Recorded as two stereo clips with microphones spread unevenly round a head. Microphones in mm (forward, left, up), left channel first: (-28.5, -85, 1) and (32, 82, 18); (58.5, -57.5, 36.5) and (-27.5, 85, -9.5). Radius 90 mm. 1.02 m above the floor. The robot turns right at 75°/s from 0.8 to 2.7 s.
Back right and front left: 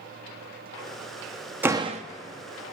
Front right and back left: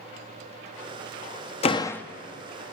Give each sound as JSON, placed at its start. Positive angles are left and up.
{"t": 1.6, "sound": "a door slam", "azimuth_deg": -10, "distance_m": 0.8}